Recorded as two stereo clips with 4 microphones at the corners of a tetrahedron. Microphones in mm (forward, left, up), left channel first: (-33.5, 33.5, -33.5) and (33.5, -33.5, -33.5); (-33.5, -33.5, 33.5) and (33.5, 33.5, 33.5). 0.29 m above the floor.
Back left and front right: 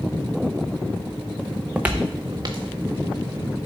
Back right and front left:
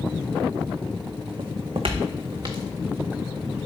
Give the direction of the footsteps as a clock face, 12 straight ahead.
10 o'clock.